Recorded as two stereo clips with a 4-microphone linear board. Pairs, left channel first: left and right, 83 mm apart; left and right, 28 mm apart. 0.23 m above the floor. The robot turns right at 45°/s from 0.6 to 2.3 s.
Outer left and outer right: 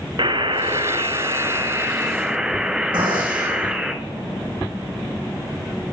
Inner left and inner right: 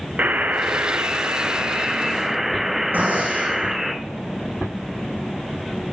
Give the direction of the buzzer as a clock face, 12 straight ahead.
3 o'clock.